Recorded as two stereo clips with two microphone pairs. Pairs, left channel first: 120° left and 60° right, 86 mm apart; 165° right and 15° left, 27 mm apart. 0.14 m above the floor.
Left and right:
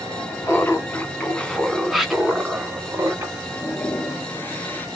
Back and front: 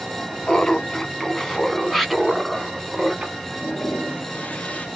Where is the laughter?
155° left, 1.3 m; by 3.4 s 35° right, 1.3 m.